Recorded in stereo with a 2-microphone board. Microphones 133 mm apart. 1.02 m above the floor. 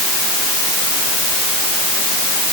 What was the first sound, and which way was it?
Only background noise.